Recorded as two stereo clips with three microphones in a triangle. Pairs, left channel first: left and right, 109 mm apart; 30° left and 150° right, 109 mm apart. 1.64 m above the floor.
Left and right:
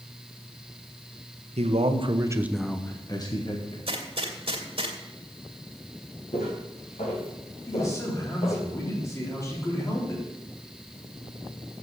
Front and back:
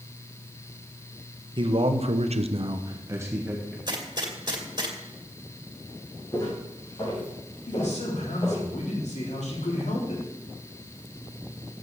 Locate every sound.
1.6 s a man speaking: 105° right, 1.4 m; by 3.8 s 130° left, 1.9 m
3.9 s a gunshot: 110° right, 2 m
6.3 s footsteps: 85° left, 4.5 m; by 8.7 s 70° left, 5 m
7.7 s a man speaking: 30° left, 4 m